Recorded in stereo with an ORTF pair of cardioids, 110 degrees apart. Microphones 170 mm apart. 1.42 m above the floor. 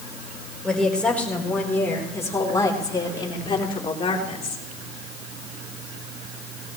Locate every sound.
0.6 s a woman speaking: 5° left, 4.5 m; by 4.7 s 40° left, 4 m